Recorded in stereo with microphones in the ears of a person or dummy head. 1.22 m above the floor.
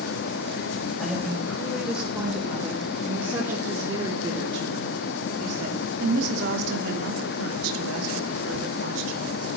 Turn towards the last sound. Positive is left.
turn(degrees=-75)  # may be behind; listen again after turning